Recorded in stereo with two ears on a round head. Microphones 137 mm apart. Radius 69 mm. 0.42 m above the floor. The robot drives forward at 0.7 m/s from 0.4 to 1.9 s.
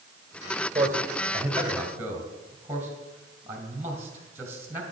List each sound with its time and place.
0.8 s a man speaking: 20° right (ahead or behind), 2.0 m; by 4.8 s 15° right (ahead or behind), 2.5 m